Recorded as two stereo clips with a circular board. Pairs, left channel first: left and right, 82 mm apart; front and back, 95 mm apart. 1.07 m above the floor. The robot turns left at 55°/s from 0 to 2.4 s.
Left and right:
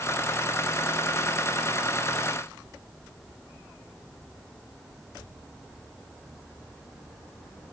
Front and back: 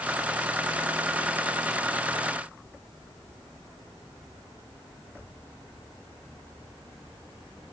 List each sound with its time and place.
Only background noise.